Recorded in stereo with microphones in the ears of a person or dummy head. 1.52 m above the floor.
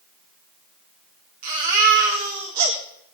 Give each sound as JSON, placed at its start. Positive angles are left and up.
{"t": 1.4, "sound": "a baby crying", "side_deg": -40, "distance_m": 3.5}